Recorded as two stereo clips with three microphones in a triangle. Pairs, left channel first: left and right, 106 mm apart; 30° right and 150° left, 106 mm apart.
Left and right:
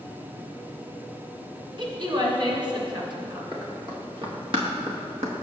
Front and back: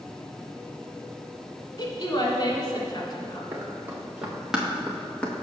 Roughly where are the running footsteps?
Behind right.